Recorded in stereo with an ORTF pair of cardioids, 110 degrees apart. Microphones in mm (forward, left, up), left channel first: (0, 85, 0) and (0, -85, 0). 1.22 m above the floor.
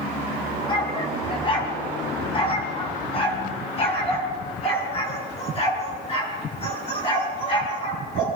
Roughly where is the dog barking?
Ahead left.